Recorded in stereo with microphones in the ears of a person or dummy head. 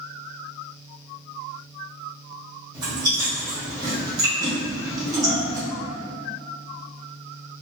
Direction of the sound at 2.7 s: 20° right (ahead or behind).